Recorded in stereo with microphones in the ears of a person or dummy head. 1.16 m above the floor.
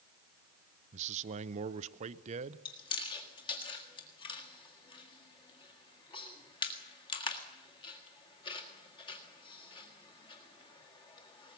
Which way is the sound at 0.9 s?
35° right (ahead or behind).